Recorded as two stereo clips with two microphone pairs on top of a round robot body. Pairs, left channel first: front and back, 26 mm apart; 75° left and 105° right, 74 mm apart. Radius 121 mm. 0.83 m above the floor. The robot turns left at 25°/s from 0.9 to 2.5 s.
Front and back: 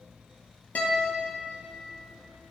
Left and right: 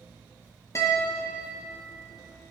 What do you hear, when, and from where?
0.8 s a guitar: 25° left, 1.7 m; by 1.4 s 15° left, 1.7 m